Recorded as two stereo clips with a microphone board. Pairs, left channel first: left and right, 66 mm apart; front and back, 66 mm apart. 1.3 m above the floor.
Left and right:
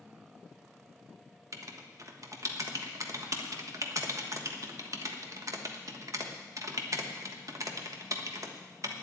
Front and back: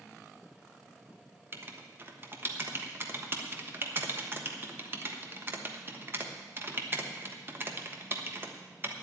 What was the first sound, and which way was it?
Writing, 125° right.